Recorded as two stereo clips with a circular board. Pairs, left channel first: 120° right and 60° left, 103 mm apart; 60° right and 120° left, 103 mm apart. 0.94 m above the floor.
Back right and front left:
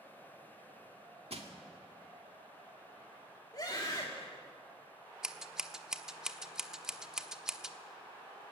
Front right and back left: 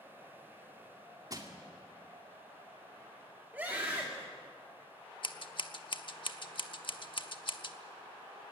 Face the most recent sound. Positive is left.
turn(degrees=-25)